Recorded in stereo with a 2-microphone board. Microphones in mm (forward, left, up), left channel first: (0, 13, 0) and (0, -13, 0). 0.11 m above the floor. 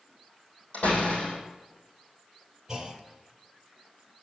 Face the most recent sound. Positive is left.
turn(degrees=-20)  # may be behind; listen again after turning